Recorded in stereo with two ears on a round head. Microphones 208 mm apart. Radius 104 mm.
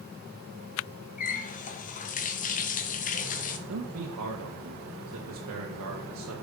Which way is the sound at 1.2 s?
35° left (ahead or behind).